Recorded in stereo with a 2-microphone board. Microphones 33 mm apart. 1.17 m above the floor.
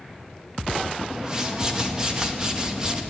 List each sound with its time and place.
1.1 s a whoosh: 20° right (ahead or behind), 2 m